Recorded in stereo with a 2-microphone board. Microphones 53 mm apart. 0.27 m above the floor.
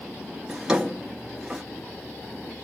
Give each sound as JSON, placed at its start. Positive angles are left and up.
{"t": 0.5, "sound": "a drawer", "side_deg": -10, "distance_m": 1.7}